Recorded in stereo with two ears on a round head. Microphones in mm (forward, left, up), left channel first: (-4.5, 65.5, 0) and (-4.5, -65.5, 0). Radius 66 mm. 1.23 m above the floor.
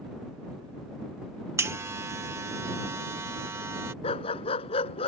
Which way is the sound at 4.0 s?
40° left (ahead or behind).